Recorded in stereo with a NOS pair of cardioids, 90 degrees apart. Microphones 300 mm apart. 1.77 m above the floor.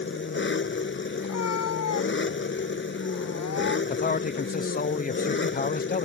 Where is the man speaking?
30° left.